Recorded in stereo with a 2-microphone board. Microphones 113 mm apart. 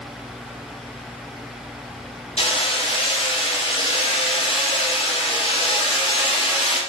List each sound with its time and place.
2.4 s hammering: 65° left (ahead or behind), 4.5 m